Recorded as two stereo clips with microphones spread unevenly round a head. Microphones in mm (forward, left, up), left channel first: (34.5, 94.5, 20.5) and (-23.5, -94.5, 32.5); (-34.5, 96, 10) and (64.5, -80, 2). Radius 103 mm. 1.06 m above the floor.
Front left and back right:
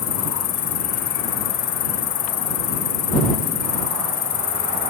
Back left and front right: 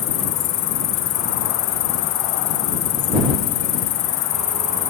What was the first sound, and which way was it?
An insect, 120° left.